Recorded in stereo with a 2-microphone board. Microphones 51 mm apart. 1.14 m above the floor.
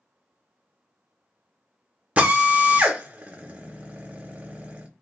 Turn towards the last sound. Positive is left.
turn(degrees=-25)  # may be behind; listen again after turning